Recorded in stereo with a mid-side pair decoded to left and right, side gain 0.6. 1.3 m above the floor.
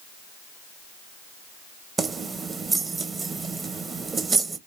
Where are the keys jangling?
30° right, 0.7 m.